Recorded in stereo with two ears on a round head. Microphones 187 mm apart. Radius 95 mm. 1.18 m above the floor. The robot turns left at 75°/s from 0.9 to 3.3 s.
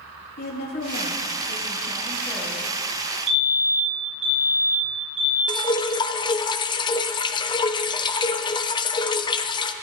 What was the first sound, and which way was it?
A woman speaking, 125° left.